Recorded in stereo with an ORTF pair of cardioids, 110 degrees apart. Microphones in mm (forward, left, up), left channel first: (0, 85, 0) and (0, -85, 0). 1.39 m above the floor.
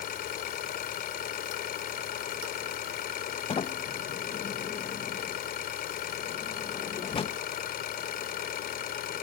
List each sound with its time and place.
0.0 s an engine running: 60° left
3.5 s a sliding door: 35° left